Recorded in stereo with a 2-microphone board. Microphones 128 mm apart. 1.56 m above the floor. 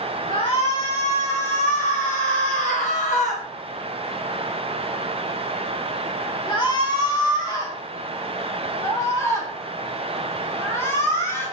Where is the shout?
45° left (ahead or behind), 1.8 m; by 11.4 s 20° left (ahead or behind), 5 m.